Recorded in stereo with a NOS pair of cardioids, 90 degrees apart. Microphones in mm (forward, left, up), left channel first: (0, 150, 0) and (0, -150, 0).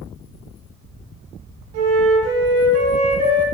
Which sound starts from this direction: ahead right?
A flute, at 1.7 s.